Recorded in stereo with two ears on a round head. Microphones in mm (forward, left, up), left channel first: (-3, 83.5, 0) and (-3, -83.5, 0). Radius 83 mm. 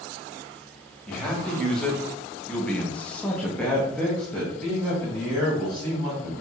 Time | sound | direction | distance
1.1 | a man speaking | 5° left (ahead or behind) | 1.2 m